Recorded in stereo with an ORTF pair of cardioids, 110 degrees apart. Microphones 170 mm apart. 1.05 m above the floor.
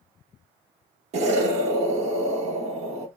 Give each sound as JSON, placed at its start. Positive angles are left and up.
{"t": 1.1, "sound": "an explosion", "azimuth_deg": -40, "distance_m": 1.1}